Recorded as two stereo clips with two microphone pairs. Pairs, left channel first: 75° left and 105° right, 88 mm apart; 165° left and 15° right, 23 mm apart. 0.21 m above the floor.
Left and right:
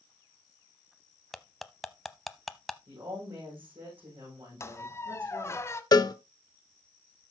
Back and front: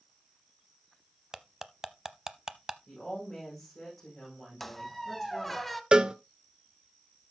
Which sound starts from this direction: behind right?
A woman speaking, at 2.9 s.